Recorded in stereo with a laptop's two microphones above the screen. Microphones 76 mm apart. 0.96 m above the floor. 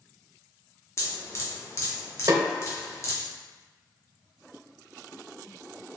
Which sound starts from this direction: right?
A snare drum, at 2.3 s.